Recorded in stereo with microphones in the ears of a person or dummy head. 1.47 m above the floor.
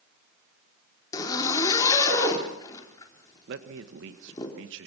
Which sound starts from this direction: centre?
A zipper, at 1.1 s.